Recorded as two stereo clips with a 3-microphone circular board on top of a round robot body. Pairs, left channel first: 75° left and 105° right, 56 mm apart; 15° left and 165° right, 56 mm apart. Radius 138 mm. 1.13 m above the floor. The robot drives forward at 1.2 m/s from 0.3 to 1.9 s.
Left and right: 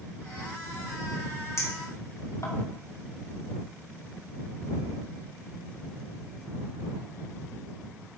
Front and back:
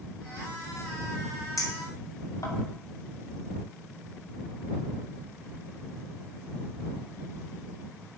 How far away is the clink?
About 3 m.